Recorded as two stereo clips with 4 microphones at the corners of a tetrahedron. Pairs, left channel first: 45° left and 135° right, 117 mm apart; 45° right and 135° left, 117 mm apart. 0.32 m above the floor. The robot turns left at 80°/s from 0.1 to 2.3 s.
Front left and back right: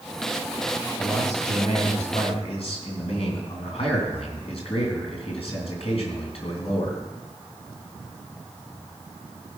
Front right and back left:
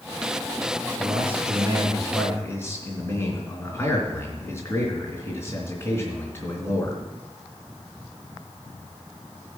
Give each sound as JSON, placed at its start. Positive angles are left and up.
{"t": 1.0, "sound": "a man speaking", "azimuth_deg": 130, "distance_m": 3.0}